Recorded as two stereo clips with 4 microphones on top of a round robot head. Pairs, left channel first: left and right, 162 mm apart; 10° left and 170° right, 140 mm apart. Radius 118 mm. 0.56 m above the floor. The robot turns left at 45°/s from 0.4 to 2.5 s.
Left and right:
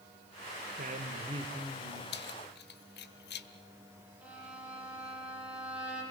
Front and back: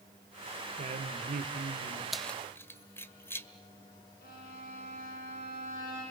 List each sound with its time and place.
0.8 s a woman speaking: 120° right, 2.5 m; by 2.0 s straight behind, 2.5 m
2.1 s keys jangling: 105° left, 1.4 m; by 3.5 s 85° left, 1.4 m
4.2 s a violin: 10° right, 10 m